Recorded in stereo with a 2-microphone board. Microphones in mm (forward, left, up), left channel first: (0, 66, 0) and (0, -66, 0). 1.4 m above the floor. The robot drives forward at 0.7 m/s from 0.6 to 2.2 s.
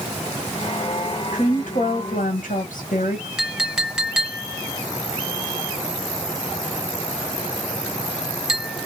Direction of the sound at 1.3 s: 65° left (ahead or behind).